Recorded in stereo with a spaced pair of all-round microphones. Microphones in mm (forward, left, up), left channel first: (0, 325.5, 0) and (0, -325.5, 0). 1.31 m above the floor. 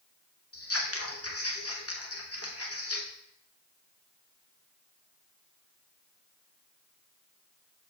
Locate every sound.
0.5 s scissors: 20° left (ahead or behind), 1.1 m